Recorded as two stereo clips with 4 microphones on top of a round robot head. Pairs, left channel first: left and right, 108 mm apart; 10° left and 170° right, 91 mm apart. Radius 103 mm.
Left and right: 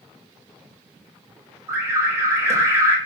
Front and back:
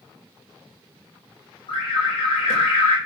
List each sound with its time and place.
1.7 s an alarm: 25° right, 5 m